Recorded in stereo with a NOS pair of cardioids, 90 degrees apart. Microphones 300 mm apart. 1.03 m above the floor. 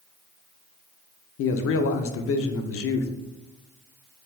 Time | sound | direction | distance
1.4 | a man speaking | 50° left | 0.5 m